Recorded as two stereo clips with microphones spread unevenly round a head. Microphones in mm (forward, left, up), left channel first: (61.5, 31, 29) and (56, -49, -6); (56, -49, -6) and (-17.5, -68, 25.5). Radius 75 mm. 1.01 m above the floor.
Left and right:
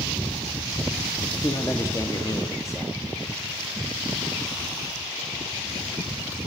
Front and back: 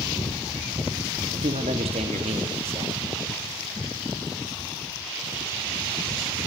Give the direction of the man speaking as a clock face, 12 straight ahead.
7 o'clock.